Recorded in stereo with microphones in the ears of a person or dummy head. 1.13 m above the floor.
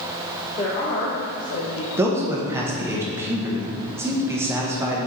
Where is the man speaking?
15° right (ahead or behind), 1.2 m.